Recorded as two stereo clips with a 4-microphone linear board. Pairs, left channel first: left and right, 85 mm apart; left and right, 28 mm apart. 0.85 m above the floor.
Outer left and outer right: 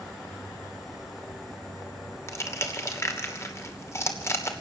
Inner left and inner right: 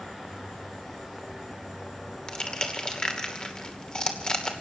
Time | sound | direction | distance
2.3 | crushing | 30° left (ahead or behind) | 2.5 m